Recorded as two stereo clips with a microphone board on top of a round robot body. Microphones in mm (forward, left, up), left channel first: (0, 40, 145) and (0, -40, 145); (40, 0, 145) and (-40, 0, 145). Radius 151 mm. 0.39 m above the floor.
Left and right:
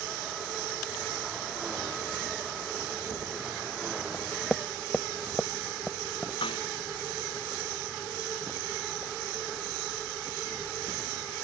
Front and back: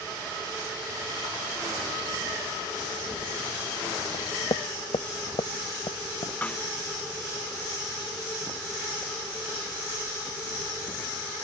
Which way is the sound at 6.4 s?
75° left.